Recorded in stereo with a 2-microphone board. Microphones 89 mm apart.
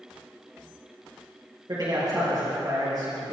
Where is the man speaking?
50° right (ahead or behind), 3 m.